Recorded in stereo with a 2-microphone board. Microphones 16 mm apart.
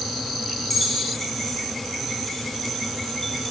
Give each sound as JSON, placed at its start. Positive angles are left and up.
{"t": 0.7, "sound": "keys jangling", "side_deg": 10, "distance_m": 3.0}